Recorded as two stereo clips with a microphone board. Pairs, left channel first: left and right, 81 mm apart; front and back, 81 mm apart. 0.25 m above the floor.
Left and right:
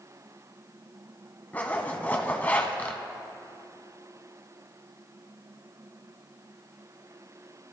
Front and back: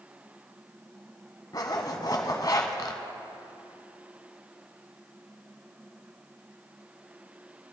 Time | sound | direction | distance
1.5 | a zipper | 25° left | 1.0 m